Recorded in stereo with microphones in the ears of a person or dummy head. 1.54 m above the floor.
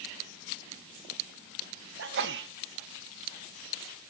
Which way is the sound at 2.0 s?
60° right (ahead or behind).